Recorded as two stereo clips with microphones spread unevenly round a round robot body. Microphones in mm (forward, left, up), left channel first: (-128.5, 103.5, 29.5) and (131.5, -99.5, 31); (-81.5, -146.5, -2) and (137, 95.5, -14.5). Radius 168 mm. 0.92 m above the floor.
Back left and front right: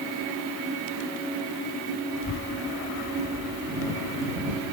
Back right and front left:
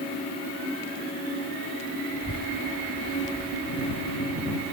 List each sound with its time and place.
2.1 s a child speaking: 175° right